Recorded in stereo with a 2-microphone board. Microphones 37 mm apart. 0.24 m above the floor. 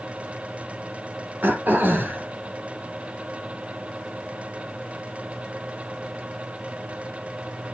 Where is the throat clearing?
65° right (ahead or behind), 4 m.